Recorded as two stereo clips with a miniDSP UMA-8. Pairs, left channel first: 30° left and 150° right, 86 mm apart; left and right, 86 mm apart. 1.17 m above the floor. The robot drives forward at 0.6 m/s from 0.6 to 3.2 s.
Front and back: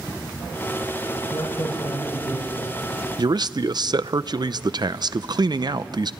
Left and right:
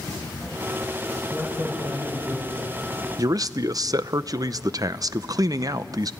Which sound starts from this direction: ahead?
A man speaking, at 1.3 s.